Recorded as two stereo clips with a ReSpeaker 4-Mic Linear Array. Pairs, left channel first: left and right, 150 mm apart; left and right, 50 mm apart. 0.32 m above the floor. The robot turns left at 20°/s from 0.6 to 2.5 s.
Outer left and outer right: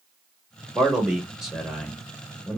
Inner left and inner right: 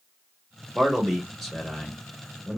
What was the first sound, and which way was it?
A man speaking, 5° right (ahead or behind).